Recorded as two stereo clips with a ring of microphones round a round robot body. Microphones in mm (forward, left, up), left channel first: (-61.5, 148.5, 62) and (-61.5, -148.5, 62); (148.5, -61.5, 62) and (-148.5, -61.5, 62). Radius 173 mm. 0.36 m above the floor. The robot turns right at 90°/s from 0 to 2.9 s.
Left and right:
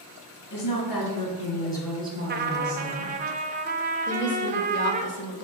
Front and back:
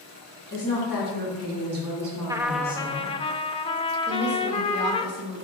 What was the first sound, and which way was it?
A woman speaking, 55° left.